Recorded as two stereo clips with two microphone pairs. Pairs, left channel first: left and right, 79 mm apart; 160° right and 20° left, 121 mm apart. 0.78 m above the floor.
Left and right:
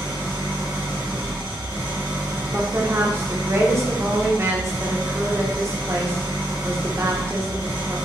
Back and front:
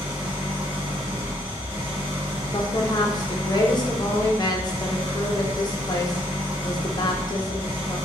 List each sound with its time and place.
0.0 s an engine running: 55° right, 1.1 m
2.5 s a woman speaking: 130° right, 0.6 m